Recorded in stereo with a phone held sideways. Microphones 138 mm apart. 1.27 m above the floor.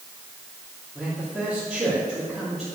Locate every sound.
0.9 s a man speaking: centre (ahead or behind), 3.5 m